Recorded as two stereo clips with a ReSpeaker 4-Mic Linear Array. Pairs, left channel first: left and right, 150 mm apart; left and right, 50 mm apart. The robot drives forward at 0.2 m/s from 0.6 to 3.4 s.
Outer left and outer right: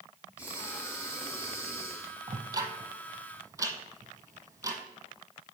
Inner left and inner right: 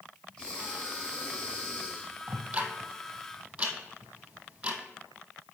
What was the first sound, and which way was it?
Breathing, 20° left (ahead or behind).